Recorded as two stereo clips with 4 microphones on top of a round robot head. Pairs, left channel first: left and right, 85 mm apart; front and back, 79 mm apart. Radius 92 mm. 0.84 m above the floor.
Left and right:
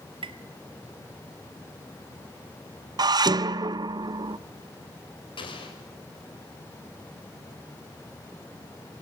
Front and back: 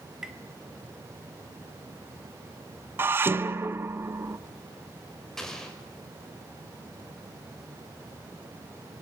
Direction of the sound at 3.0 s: 120° right.